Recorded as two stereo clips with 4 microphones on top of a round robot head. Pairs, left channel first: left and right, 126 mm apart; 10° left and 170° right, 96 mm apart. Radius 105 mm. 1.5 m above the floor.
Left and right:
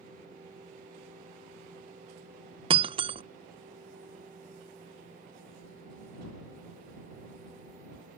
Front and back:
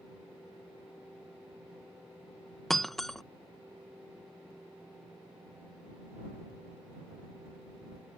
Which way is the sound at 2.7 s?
80° right.